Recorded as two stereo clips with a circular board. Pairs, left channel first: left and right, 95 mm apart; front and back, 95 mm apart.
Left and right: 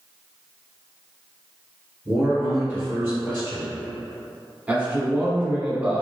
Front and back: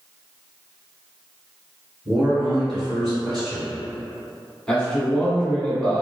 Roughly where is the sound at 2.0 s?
Right.